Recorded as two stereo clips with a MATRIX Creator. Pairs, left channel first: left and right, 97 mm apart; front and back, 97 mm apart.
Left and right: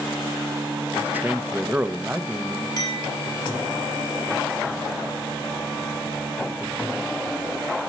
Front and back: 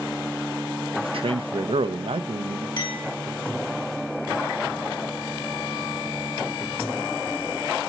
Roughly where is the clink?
Ahead left.